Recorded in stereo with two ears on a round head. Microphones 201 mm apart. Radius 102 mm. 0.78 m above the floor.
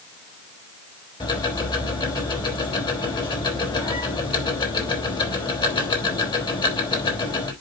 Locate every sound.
1.2 s ticking: 20° left (ahead or behind), 3.5 m